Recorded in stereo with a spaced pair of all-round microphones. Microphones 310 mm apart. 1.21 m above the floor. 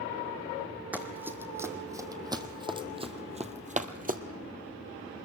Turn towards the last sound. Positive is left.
turn(degrees=-30)  # may be behind; listen again after turning